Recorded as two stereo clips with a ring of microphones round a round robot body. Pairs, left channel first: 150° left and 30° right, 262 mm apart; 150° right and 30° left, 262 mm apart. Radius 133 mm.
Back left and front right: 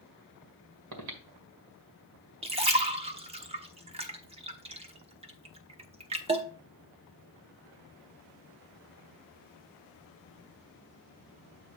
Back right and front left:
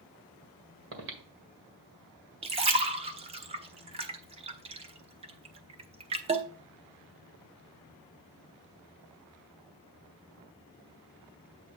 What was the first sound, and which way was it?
Breathing, 15° right.